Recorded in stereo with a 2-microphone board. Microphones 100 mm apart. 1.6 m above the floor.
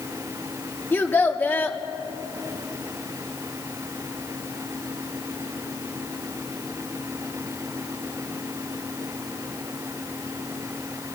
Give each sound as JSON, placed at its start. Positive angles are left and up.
{"t": 0.9, "sound": "a child speaking", "side_deg": 20, "distance_m": 2.0}